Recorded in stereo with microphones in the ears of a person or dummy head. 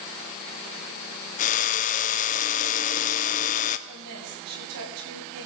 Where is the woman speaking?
80° right, 7.5 m.